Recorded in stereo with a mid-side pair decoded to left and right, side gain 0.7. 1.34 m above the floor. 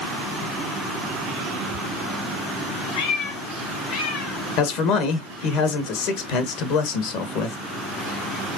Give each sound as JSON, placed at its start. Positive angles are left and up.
{"t": 3.0, "sound": "a cat meowing", "azimuth_deg": 65, "distance_m": 3.5}
{"t": 4.6, "sound": "a man speaking", "azimuth_deg": 65, "distance_m": 1.6}